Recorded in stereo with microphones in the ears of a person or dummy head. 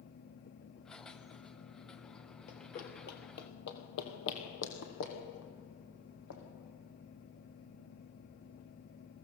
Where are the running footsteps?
45° left (ahead or behind), 2 m; by 6.4 s 75° left (ahead or behind), 5 m.